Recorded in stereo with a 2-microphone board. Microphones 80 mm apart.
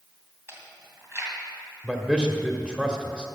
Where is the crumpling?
No crumpling in this recording.